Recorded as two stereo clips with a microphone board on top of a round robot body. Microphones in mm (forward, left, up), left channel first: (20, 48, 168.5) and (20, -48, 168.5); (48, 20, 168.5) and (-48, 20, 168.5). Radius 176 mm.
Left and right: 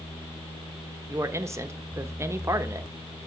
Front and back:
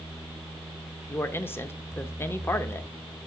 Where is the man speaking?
50° right, 0.9 m.